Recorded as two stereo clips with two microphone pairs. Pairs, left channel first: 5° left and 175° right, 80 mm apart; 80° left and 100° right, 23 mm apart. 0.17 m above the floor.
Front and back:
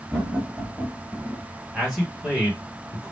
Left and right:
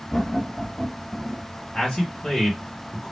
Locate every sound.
0.1 s laughter: 80° left, 1.4 m; by 1.5 s 105° right, 1.4 m
1.7 s a man speaking: 105° left, 1.6 m